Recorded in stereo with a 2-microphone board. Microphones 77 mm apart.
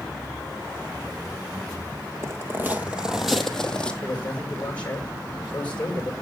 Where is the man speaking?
15° left (ahead or behind), 7.5 m.